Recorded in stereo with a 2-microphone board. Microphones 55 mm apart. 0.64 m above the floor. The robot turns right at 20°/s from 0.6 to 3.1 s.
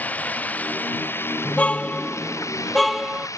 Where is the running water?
30° left; by 3.4 s 80° left.